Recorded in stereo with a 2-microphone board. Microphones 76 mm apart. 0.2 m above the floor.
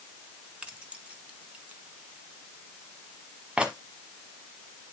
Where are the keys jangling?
15° right (ahead or behind), 1.3 m.